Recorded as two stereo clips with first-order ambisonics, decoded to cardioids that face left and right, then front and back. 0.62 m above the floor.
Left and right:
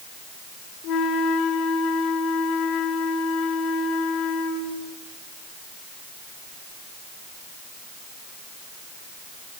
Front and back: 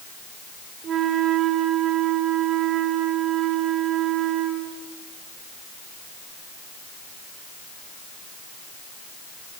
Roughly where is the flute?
Behind left.